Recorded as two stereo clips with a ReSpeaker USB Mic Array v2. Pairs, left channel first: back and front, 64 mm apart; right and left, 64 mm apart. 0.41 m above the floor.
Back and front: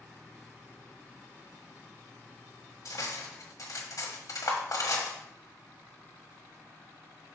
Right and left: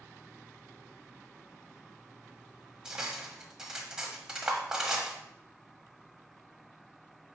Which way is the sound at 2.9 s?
170° left.